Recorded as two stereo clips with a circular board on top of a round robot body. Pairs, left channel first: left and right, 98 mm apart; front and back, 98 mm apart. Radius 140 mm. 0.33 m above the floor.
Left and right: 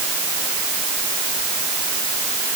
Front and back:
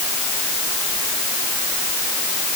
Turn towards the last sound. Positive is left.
No sound to turn to.